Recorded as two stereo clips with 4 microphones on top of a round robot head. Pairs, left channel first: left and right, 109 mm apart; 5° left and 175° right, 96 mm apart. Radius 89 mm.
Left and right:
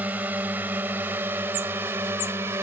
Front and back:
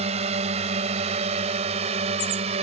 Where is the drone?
170° right; by 2.6 s 160° right.